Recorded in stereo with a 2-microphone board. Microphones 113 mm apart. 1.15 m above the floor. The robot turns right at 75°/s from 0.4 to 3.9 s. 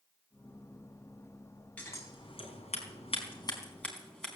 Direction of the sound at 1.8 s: 15° left (ahead or behind).